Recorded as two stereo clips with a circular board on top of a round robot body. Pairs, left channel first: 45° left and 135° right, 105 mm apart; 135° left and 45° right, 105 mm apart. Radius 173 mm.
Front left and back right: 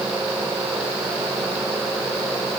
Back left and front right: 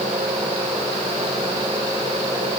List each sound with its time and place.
Only background noise.